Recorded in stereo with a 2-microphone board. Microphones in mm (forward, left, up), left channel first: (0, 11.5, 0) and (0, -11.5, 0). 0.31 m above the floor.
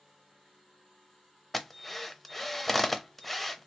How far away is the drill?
About 0.6 m.